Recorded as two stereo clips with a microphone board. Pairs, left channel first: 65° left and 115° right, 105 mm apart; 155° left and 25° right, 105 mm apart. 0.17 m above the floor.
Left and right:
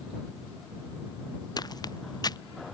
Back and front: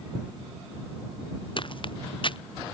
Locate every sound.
1.6 s footsteps: 120° left